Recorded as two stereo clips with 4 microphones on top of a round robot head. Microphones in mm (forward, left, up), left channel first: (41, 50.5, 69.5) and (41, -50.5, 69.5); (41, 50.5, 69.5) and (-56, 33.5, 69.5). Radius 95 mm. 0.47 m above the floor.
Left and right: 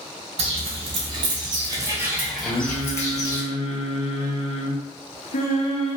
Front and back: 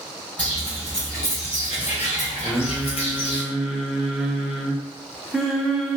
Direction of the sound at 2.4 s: 105° left.